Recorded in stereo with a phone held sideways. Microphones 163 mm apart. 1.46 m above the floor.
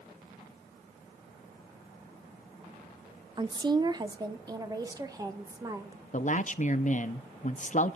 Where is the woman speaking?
30° right (ahead or behind), 0.7 m; by 6.0 s 20° right (ahead or behind), 2 m.